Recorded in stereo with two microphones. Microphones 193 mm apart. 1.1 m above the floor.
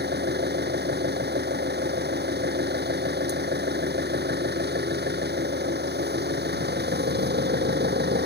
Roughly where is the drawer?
No drawer in this recording.